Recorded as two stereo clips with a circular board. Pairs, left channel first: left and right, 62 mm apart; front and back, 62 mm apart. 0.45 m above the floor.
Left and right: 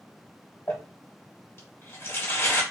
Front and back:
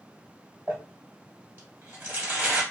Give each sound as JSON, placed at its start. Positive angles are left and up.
{"t": 0.7, "sound": "crumpling", "azimuth_deg": 135, "distance_m": 1.4}